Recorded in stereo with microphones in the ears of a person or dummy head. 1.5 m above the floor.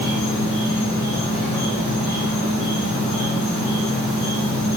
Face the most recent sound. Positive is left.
turn(degrees=60)  # may be behind; listen again after turning